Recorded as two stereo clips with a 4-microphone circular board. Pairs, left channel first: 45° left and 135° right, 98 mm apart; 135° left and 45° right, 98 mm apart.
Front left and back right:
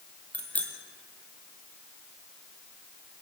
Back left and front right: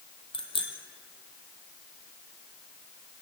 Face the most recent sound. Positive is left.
turn(degrees=120)